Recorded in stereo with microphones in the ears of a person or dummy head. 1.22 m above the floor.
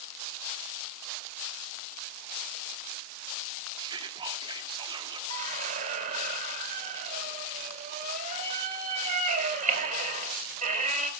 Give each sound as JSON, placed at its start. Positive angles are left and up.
{"t": 3.8, "sound": "whispering", "side_deg": -25, "distance_m": 2.0}
{"t": 5.3, "sound": "a squeak", "side_deg": -50, "distance_m": 2.5}